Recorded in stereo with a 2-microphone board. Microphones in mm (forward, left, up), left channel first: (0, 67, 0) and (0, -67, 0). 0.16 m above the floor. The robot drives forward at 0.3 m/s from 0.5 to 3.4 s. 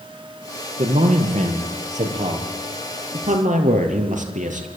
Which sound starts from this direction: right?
A man speaking, at 0.8 s.